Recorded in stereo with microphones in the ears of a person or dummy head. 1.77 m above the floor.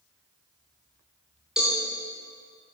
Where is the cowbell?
5° right (ahead or behind), 2.5 m.